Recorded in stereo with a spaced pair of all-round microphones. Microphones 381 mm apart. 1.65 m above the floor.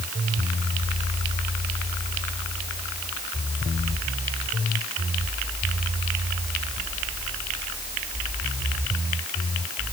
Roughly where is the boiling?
No boiling in this recording.